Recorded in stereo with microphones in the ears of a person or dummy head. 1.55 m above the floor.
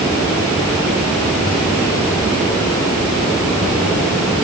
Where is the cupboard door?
No cupboard door in this recording.